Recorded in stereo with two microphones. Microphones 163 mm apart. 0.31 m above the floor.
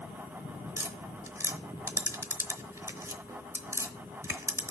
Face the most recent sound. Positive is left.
turn(degrees=-15)  # may be behind; listen again after turning